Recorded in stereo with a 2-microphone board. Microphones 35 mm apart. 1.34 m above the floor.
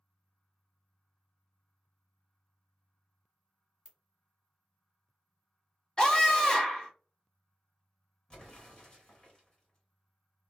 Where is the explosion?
30° left (ahead or behind), 1.5 m.